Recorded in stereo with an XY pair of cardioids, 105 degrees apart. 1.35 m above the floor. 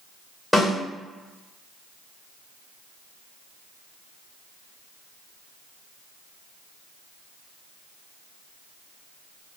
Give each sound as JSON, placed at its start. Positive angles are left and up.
{"t": 0.5, "sound": "a snare drum", "azimuth_deg": 5, "distance_m": 1.6}